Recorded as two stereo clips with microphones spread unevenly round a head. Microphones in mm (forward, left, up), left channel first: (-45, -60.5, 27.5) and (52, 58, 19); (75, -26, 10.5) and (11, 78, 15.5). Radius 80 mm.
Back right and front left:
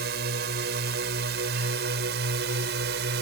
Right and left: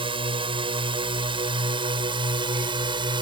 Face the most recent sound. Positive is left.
turn(degrees=70)